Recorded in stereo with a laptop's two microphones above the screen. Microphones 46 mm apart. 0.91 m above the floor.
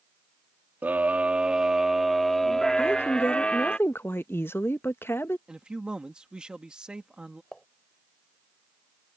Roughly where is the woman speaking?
Left.